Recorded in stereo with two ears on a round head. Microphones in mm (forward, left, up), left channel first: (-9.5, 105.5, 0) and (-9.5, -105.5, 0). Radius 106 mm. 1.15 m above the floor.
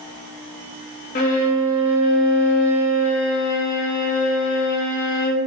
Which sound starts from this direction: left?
A violin, at 1.1 s.